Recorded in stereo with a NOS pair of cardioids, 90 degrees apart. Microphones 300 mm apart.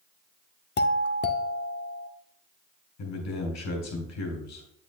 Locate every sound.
0.8 s a doorbell: 35° left, 0.8 m
3.0 s a man speaking: 65° left, 4 m